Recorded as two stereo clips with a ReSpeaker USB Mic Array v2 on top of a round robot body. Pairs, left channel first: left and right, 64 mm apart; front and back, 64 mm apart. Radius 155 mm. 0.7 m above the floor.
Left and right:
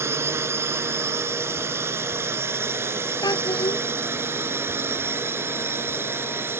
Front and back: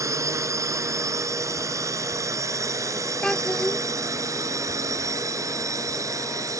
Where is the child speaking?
80° left.